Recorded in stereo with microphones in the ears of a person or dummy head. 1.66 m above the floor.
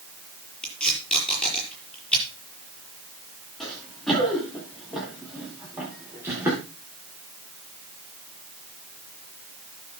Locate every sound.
0.6 s tape being pulled: 5° left (ahead or behind), 6 m
3.6 s running footsteps: centre (ahead or behind), 7 m; by 6.6 s 15° right (ahead or behind), 6.5 m